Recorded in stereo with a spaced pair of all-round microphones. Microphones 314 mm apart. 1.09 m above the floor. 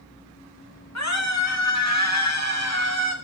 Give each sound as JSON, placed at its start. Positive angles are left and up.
{"t": 0.9, "sound": "a scream", "side_deg": 55, "distance_m": 4.0}